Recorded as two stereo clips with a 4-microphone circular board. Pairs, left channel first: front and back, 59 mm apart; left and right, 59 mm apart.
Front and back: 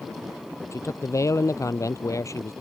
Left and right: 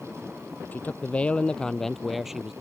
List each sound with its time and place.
0.7 s a man speaking: 30° left; by 2.5 s 15° right